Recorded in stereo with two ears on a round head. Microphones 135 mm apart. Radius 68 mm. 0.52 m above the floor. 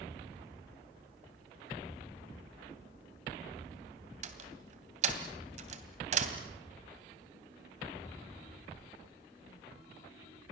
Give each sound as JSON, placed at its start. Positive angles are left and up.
{"t": 4.2, "sound": "a door slam", "side_deg": -50, "distance_m": 2.5}